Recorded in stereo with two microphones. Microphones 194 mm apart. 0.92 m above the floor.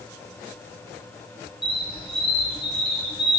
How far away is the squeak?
About 0.6 m.